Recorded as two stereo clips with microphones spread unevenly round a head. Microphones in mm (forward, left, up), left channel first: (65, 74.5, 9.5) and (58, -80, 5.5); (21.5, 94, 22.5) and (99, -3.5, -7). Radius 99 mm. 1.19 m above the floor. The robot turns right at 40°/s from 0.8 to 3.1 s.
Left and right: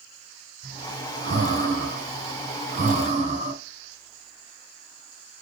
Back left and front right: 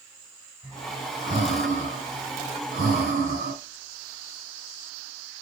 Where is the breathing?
140° right, 4 m; by 3.5 s 50° right, 4 m.